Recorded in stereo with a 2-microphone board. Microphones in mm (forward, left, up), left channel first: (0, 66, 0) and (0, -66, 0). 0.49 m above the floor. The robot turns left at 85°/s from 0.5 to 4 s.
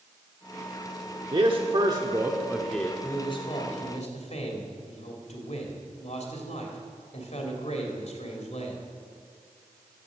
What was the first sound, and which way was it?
A man speaking, 70° right.